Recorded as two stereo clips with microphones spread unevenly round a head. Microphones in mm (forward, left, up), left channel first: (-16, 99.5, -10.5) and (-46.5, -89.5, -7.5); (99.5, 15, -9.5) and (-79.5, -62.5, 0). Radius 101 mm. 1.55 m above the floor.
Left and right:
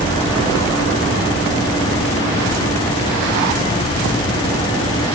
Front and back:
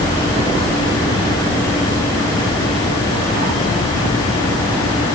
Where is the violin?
No violin in this recording.